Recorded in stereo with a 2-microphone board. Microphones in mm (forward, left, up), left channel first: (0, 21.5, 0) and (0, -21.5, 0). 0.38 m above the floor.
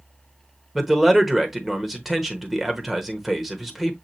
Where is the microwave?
No microwave in this recording.